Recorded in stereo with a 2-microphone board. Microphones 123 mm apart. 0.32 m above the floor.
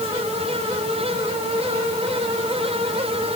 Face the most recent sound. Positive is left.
No sound to turn to.